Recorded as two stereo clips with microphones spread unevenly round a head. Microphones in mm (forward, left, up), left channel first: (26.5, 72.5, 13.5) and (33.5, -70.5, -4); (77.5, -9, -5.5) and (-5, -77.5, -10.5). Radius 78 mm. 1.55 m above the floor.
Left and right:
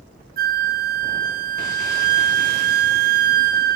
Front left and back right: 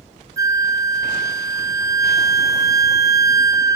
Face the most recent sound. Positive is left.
turn(degrees=-85)